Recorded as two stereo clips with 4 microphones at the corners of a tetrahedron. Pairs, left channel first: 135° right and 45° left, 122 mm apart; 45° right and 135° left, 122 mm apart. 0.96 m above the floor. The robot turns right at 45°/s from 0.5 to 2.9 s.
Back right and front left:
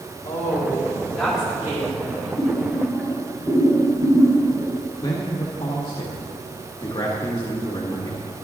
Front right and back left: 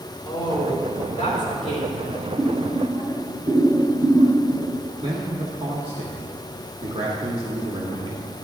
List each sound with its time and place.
0.2 s a woman speaking: 80° right, 3 m; by 2.3 s straight ahead, 3 m
2.4 s boiling: 100° left, 3.5 m; by 4.7 s 125° left, 3.5 m
5.0 s a man speaking: 170° left, 1.2 m